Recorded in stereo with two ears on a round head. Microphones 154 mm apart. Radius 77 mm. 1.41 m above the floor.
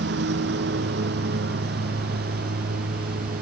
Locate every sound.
0.0 s a lawn mower: 70° right (ahead or behind); by 3.4 s 55° right (ahead or behind)